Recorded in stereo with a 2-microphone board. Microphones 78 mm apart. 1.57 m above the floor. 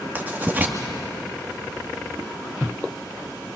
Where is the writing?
25° right (ahead or behind), 1.8 m.